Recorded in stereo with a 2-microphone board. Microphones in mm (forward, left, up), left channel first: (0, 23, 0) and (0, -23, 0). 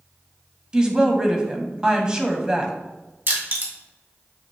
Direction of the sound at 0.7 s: 15° right (ahead or behind).